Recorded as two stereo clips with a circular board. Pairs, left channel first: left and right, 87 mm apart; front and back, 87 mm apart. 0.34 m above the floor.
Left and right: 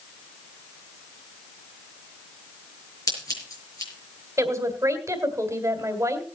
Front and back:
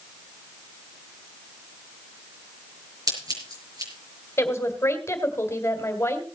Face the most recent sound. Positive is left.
turn(degrees=-50)